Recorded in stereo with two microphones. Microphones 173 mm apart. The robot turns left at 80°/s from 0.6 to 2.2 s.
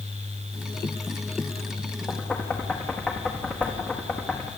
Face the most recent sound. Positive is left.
turn(degrees=5)  # may be behind; listen again after turning